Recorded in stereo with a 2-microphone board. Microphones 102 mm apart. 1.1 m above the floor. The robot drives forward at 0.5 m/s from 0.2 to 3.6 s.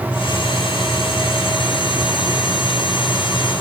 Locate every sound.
Only background noise.